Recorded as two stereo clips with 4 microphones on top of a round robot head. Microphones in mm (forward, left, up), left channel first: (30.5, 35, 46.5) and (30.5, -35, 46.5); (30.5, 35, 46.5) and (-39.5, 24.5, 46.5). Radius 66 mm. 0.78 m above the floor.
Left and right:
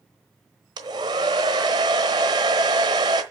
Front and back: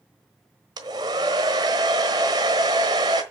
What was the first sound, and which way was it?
A hair dryer, 130° right.